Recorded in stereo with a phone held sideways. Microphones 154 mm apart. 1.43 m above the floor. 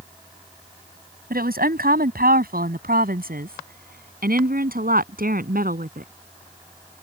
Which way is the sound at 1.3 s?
85° right.